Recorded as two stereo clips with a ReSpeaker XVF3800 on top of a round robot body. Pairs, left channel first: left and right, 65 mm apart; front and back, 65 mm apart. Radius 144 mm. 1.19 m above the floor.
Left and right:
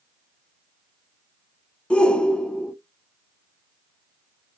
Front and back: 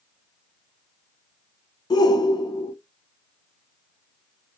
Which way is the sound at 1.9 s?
15° left.